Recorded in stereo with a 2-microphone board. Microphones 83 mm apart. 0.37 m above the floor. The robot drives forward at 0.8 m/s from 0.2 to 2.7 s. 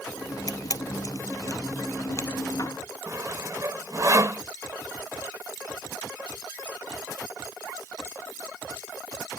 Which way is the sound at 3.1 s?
45° right (ahead or behind).